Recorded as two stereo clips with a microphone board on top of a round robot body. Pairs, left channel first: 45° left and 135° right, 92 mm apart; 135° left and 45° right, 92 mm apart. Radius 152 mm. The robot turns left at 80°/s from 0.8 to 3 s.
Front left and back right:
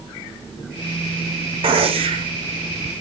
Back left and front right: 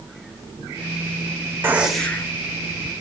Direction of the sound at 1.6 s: 110° right.